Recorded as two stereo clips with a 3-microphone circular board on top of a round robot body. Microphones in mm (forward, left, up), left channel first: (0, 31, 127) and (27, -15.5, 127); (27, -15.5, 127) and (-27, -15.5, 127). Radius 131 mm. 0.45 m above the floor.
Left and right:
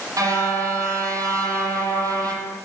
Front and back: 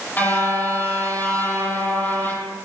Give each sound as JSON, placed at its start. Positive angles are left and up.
{"t": 0.2, "sound": "a car horn", "azimuth_deg": -55, "distance_m": 9.5}